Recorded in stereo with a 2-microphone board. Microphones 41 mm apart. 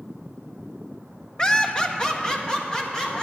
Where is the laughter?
20° left (ahead or behind), 0.7 m; by 3.2 s 15° left (ahead or behind), 2.5 m.